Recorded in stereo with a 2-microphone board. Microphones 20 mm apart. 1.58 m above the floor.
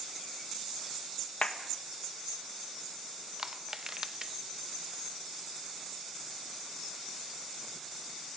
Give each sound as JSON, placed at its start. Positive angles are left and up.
{"t": 1.4, "sound": "a clap", "side_deg": 75, "distance_m": 2.0}
{"t": 3.4, "sound": "crushing", "side_deg": -30, "distance_m": 0.9}